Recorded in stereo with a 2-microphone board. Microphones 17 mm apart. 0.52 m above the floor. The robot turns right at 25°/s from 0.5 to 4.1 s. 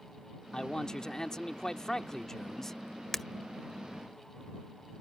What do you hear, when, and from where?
0.5 s a man speaking: 85° left; by 2.8 s 145° left
3.1 s breaking glass: 10° left (ahead or behind)